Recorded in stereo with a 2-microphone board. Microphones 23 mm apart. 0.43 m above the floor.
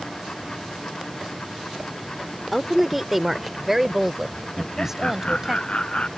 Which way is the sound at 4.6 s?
45° left (ahead or behind).